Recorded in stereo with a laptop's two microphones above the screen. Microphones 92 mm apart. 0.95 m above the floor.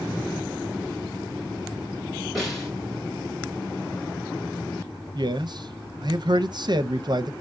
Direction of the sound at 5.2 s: 50° right (ahead or behind).